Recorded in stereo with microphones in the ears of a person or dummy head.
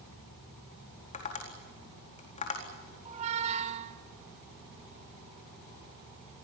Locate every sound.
1.1 s tapping: 35° left (ahead or behind), 4 m
3.0 s a squeak: 35° right (ahead or behind), 1.3 m